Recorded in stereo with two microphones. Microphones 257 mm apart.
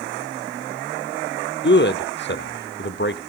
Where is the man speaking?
45° left (ahead or behind), 1.2 m.